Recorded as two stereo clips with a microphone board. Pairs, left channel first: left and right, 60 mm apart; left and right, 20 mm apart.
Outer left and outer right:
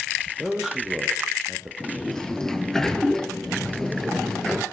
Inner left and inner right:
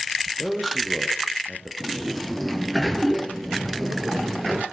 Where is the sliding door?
10° left (ahead or behind), 1.4 m.